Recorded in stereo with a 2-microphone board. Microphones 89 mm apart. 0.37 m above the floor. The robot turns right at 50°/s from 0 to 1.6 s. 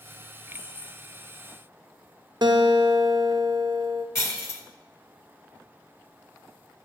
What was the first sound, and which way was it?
Keys jangling, 75° left (ahead or behind).